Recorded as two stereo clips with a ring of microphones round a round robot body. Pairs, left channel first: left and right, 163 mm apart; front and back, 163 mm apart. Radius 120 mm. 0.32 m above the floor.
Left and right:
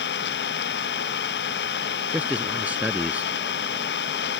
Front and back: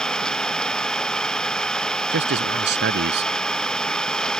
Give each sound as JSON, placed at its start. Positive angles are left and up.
{"t": 0.0, "sound": "an engine running", "azimuth_deg": 85}
{"t": 2.1, "sound": "a man speaking", "azimuth_deg": -175}